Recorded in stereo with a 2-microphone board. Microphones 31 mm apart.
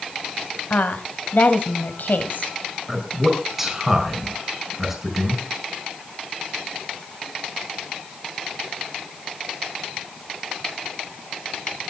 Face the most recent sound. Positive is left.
turn(degrees=-10)  # may be behind; listen again after turning